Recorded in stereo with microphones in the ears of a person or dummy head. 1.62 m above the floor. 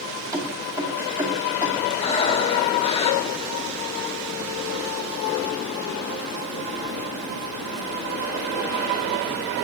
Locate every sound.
0.3 s keys jangling: 20° right (ahead or behind), 2 m
2.0 s breathing: 30° left (ahead or behind), 1.0 m